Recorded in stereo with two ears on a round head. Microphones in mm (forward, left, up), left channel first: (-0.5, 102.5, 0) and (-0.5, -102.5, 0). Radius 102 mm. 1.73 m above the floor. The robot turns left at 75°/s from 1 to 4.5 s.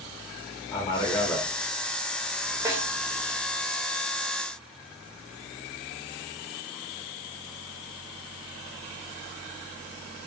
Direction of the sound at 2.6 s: 15° right (ahead or behind).